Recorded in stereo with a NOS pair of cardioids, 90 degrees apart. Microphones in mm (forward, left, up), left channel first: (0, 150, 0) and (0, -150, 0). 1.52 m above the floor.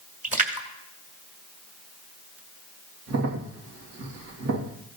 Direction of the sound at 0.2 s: 25° right.